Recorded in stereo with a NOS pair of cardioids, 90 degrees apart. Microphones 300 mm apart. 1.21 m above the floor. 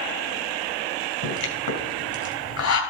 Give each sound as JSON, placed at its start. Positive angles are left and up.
{"t": 1.2, "sound": "a pop", "azimuth_deg": 60, "distance_m": 4.0}